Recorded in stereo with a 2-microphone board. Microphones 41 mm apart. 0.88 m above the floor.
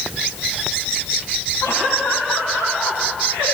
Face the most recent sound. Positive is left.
turn(degrees=60)  # may be behind; listen again after turning